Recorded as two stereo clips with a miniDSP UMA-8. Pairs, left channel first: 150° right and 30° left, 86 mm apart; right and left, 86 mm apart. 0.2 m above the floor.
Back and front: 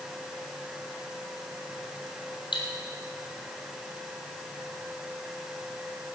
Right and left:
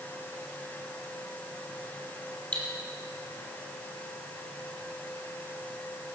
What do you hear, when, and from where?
2.5 s cutlery clinking: 165° right, 4 m